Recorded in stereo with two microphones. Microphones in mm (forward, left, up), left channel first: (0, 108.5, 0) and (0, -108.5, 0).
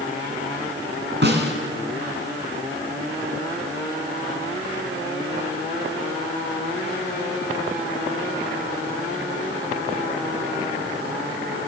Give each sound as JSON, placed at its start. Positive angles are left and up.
{"t": 1.2, "sound": "a snare drum", "side_deg": -55, "distance_m": 1.9}